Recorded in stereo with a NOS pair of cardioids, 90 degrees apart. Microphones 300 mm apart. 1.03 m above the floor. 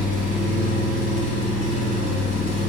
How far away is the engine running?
About 1.2 m.